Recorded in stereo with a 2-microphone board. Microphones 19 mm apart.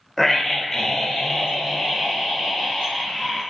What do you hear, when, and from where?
0.2 s a scream: 20° left (ahead or behind), 1.5 m; by 3.4 s 25° left (ahead or behind), 4.5 m